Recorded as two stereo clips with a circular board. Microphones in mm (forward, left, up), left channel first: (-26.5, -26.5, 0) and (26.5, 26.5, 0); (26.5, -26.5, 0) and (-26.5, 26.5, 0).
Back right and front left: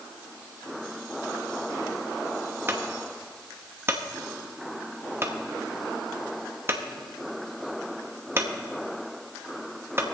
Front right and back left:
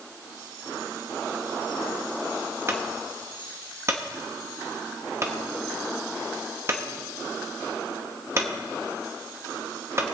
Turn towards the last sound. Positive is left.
turn(degrees=90)